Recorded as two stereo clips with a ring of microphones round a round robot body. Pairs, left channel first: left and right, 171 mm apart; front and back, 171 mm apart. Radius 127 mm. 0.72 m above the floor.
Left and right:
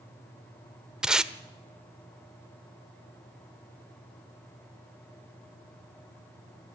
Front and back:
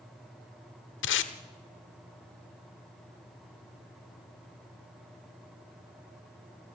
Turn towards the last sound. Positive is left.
turn(degrees=-5)